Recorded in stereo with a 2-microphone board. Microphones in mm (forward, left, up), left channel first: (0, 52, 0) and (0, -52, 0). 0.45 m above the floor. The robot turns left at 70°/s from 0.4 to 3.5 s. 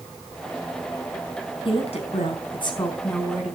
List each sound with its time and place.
1.6 s a woman speaking: 120° left, 4.5 m; by 3.5 s 10° right, 4.5 m